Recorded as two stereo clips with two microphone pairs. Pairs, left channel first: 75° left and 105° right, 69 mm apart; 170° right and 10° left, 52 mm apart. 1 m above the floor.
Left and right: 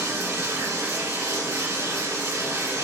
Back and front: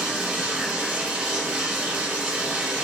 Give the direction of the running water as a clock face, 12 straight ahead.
2 o'clock.